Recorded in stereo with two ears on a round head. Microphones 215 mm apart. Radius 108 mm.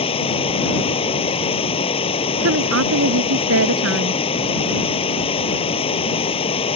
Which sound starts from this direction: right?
A woman speaking, at 2.4 s.